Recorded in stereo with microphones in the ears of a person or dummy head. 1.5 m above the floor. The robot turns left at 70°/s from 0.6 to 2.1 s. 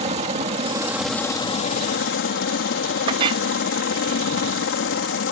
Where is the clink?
35° right (ahead or behind).